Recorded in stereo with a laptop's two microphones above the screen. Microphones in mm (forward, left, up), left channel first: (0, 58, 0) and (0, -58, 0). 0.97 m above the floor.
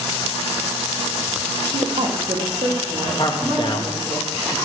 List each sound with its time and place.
1.6 s a woman speaking: 75° right (ahead or behind), 1.0 m; by 4.2 s 10° right (ahead or behind), 2.5 m
3.2 s a man speaking: 40° left (ahead or behind), 0.8 m